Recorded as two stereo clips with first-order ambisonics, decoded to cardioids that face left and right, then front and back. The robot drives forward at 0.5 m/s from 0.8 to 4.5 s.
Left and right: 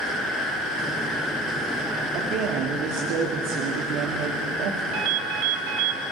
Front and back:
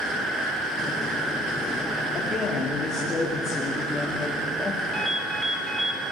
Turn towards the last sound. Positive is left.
turn(degrees=-100)